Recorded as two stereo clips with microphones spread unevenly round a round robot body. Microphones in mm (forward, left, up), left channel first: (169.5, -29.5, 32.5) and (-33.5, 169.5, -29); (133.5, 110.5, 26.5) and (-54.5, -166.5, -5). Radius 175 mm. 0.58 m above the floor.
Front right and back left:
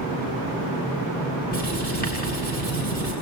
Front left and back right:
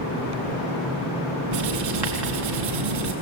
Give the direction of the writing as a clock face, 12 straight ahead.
4 o'clock.